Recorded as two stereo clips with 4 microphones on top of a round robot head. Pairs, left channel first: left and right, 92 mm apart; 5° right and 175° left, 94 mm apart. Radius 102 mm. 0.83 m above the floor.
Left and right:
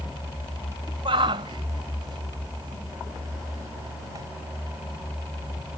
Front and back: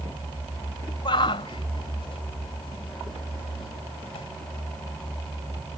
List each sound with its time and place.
1.1 s a shout: 50° right; by 4.2 s 30° right